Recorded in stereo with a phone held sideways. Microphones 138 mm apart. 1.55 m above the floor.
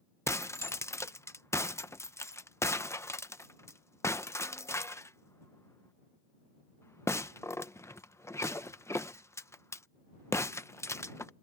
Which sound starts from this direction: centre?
Breaking glass, at 0.3 s.